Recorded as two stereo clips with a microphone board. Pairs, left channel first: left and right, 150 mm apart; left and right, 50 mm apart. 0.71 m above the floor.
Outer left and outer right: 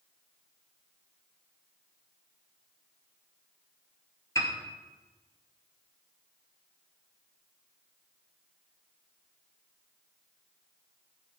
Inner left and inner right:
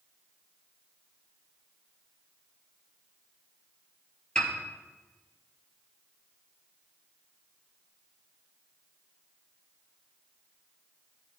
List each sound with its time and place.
4.3 s a piano: 20° left (ahead or behind), 2 m